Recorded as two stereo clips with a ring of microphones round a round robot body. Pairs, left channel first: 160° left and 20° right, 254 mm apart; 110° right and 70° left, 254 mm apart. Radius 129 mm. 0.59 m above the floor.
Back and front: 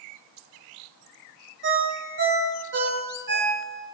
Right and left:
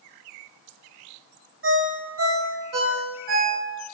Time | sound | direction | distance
1.6 | a ringtone | 25° left | 1.2 m